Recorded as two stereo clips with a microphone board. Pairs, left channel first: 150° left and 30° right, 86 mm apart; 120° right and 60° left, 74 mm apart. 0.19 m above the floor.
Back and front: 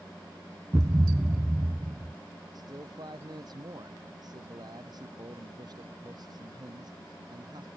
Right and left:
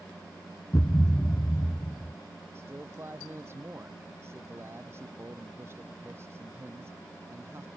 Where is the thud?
80° right.